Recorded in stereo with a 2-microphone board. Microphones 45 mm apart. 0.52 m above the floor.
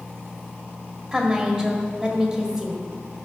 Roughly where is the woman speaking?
Centre.